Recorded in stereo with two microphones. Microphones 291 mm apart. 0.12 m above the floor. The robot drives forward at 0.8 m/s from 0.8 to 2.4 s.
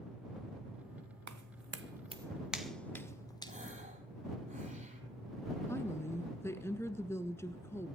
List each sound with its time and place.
1.3 s footsteps: 75° right (ahead or behind), 0.9 m; by 3.5 s 15° left (ahead or behind), 2 m
3.5 s a gasp: 25° right (ahead or behind), 3 m
5.7 s a woman speaking: 10° left (ahead or behind), 1.1 m